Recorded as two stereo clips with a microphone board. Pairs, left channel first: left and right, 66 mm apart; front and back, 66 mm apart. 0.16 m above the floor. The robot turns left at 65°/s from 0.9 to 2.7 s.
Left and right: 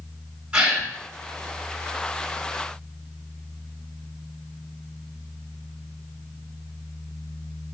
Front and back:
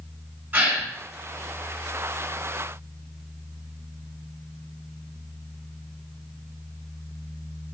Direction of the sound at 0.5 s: 150° right.